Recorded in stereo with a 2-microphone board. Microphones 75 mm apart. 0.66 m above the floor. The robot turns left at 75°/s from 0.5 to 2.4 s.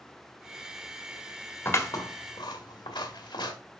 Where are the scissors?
30° left (ahead or behind), 1.8 m; by 3.5 s 80° left, 1.8 m.